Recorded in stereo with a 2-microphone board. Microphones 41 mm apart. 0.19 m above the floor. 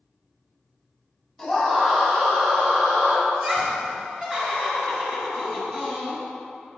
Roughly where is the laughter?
Centre.